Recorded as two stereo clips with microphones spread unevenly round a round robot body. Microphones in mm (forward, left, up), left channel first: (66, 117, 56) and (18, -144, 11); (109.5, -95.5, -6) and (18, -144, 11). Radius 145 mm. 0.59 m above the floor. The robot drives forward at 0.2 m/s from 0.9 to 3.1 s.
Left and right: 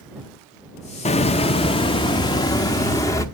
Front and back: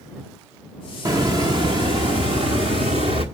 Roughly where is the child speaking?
No child speaking in this recording.